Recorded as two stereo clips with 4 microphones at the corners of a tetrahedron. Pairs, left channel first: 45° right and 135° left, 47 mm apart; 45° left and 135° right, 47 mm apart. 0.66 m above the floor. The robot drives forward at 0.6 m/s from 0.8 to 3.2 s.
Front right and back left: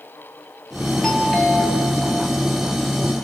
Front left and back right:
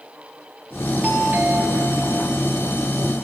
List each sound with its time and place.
1.0 s a doorbell: 120° right, 1.3 m; by 2.1 s 145° right, 1.6 m